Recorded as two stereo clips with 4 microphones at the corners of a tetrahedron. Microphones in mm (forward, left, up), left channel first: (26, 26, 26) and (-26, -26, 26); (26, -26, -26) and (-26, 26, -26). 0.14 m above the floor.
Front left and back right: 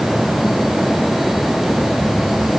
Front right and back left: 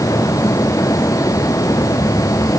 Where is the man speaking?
I don't hear a man speaking.